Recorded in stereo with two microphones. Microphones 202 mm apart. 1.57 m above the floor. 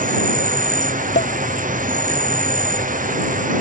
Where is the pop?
60° left (ahead or behind).